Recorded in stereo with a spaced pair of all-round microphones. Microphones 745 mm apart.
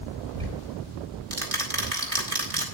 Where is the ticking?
50° right (ahead or behind), 3.5 m.